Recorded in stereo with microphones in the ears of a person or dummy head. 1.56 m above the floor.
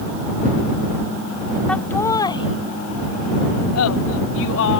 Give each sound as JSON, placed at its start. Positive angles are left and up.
{"t": 1.7, "sound": "laughter", "side_deg": 5}